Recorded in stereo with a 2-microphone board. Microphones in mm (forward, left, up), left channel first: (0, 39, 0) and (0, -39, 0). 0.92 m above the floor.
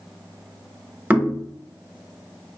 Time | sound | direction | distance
1.1 | knocking | 20° right (ahead or behind) | 1.0 m